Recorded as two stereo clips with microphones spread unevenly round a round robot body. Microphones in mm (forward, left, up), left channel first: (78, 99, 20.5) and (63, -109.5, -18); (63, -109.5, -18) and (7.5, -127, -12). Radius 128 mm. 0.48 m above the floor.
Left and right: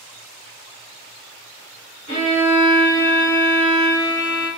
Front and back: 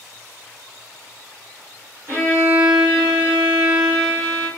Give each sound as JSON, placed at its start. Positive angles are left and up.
{"t": 2.1, "sound": "a violin", "azimuth_deg": 155, "distance_m": 1.2}